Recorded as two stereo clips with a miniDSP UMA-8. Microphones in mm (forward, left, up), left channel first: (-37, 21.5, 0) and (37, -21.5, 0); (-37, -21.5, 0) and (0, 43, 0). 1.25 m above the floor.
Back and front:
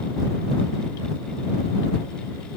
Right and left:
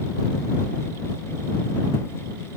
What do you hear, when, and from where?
Only background noise.